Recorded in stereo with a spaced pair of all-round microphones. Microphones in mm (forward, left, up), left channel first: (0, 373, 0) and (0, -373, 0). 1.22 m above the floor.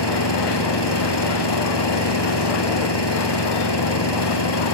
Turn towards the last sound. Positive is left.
turn(degrees=30)  # may be behind; listen again after turning